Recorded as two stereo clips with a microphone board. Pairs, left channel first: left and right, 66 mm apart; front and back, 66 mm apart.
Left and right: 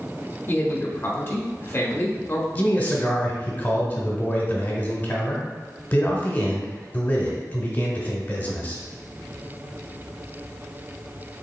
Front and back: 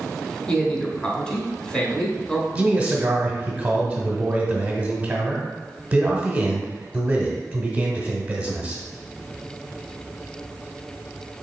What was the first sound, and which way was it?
A man speaking, 65° left.